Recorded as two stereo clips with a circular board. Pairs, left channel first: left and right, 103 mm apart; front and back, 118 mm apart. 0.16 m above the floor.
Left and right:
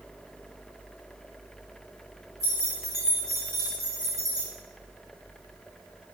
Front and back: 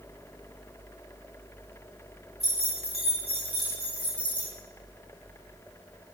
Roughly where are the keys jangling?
Behind right.